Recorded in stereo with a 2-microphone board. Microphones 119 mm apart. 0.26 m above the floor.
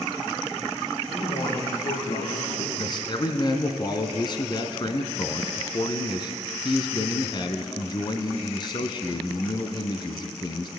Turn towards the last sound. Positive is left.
turn(degrees=40)  # may be behind; listen again after turning